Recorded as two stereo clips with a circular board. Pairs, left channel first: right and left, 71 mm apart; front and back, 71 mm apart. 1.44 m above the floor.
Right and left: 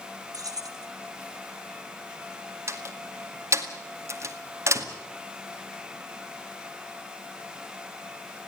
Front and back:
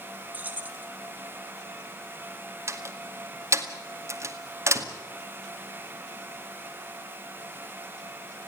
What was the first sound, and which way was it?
Keys jangling, 115° left.